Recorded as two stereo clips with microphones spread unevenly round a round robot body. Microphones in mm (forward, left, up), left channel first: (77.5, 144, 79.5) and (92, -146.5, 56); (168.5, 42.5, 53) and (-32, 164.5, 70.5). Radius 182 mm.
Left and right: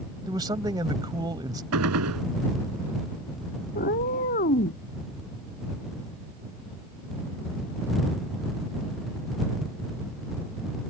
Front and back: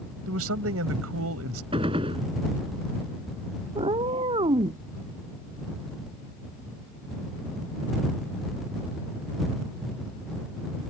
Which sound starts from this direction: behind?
A man speaking, at 0.3 s.